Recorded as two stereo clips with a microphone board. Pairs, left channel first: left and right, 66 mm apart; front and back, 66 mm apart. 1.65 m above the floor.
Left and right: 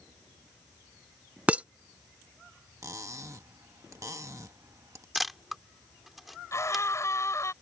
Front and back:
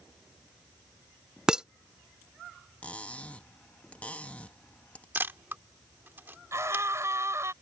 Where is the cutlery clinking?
65° right.